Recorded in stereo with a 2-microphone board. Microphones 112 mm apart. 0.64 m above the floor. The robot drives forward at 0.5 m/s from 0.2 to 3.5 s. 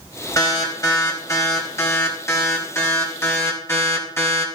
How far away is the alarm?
About 4.5 m.